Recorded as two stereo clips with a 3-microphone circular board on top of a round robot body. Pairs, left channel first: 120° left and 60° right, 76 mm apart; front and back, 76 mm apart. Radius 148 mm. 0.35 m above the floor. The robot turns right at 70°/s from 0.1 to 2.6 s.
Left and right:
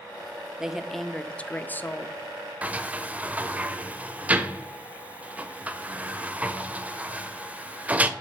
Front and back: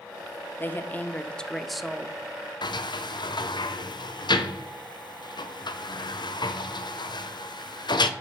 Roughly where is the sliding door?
Ahead.